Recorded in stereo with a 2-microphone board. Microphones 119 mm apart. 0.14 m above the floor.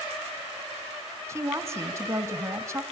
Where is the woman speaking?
25° right (ahead or behind), 1.5 m.